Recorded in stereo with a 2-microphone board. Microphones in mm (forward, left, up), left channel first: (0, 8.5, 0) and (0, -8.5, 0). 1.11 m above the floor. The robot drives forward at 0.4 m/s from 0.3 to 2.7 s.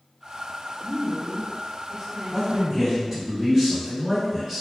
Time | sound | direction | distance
0.8 | a woman speaking | 10° right (ahead or behind) | 0.5 m
2.3 | a man speaking | 35° right (ahead or behind) | 1.1 m